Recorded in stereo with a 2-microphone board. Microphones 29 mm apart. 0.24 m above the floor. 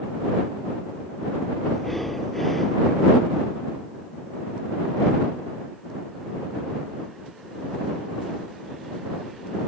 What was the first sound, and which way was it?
Breathing, 5° left (ahead or behind).